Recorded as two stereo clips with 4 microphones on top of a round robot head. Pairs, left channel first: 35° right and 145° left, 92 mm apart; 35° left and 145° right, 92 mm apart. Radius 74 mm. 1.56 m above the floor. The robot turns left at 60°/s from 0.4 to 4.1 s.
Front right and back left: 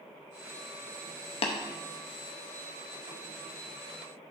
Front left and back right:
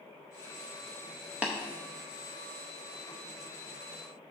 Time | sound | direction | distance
1.4 | tapping | 65° right | 0.6 m